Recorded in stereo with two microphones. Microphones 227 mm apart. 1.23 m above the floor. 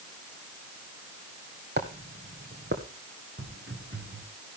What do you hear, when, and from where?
1.8 s footsteps: 50° right (ahead or behind), 2.5 m; by 2.8 s 55° right (ahead or behind), 3 m
3.4 s footsteps: 55° right (ahead or behind), 9.5 m